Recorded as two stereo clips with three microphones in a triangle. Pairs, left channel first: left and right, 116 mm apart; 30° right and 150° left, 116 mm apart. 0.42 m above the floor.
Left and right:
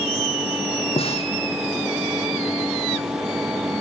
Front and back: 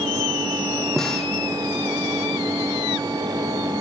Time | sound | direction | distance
1.0 | a snare drum | 55° left | 3.5 m